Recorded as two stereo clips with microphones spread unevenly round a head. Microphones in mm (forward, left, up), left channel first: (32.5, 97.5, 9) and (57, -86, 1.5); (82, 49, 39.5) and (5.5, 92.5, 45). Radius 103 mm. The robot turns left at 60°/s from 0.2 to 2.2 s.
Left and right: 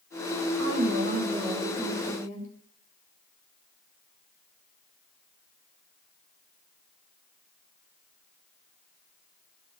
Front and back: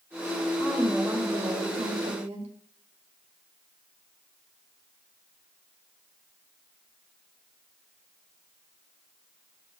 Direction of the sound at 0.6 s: 105° right.